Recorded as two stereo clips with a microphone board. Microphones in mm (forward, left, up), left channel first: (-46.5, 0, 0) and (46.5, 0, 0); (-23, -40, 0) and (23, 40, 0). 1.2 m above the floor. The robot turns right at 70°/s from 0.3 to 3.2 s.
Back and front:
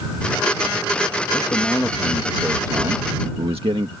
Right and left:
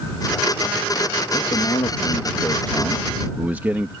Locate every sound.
1.3 s a man speaking: 140° right; by 3.9 s 10° right